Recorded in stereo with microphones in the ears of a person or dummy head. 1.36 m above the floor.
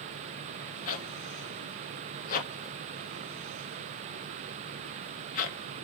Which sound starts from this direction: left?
A zipper, at 0.9 s.